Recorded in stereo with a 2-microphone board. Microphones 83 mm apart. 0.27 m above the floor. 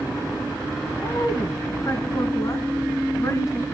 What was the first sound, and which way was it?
A woman speaking, 45° left (ahead or behind).